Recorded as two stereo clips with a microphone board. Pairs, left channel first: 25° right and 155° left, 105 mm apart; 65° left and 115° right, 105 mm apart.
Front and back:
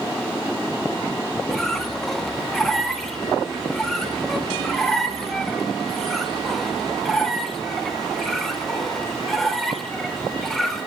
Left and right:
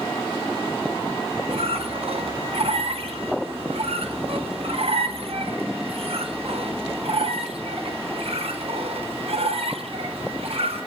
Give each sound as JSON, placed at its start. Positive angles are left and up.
{"t": 1.5, "sound": "a squeak", "azimuth_deg": -110, "distance_m": 0.7}